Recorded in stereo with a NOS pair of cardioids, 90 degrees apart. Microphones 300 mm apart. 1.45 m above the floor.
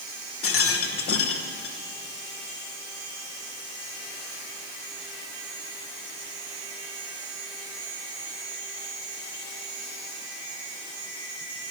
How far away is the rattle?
About 1.1 m.